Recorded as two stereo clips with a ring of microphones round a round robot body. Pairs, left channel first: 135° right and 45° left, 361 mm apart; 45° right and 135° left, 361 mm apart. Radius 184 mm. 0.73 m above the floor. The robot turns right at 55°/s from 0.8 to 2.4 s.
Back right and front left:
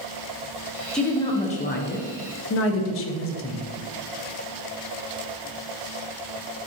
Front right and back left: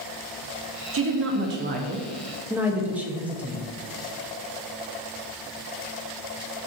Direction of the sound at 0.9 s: 140° left.